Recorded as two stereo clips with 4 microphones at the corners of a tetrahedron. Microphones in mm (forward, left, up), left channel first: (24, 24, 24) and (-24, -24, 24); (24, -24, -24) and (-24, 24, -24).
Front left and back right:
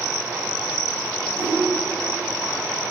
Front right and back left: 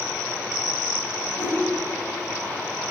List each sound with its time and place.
1.3 s a whoosh: 10° right, 3 m